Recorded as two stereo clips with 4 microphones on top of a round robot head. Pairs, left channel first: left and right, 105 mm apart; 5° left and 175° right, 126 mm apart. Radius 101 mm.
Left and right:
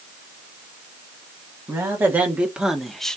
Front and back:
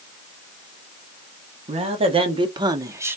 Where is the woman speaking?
155° right, 1.3 m; by 3.2 s 155° left, 0.8 m.